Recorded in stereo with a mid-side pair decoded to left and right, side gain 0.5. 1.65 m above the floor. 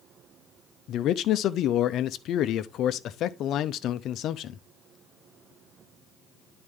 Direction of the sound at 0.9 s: 65° left.